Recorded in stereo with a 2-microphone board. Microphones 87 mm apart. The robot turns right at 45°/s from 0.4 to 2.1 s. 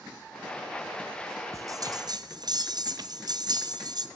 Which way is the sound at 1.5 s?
40° right (ahead or behind).